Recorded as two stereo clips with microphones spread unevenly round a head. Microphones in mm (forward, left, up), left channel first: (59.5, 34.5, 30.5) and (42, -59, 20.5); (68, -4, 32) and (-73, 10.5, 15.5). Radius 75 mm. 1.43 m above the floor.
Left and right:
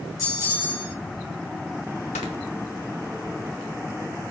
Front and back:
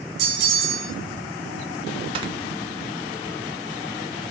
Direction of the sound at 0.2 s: 150° left.